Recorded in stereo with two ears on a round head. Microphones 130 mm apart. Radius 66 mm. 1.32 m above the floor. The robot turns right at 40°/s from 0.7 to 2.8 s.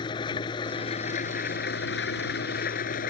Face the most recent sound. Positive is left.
turn(degrees=115)